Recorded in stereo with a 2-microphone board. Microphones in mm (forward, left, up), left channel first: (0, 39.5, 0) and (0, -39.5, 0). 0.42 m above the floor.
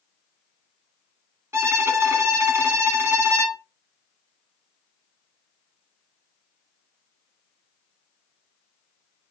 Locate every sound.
1.5 s a violin: 35° right (ahead or behind), 0.6 m